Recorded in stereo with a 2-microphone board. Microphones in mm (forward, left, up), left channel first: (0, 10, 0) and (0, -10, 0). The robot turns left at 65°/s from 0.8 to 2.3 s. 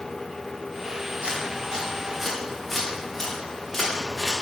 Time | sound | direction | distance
1.2 | footsteps | 75° right (ahead or behind) | 4.5 m